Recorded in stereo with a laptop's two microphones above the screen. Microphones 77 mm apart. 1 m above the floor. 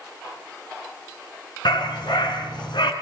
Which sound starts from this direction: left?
A dog barking, at 1.6 s.